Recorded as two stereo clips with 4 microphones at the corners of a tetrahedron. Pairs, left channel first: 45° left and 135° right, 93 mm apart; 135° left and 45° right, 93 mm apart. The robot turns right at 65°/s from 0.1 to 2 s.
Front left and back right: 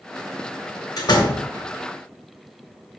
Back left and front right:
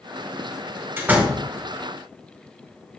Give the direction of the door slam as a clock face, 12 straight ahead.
12 o'clock.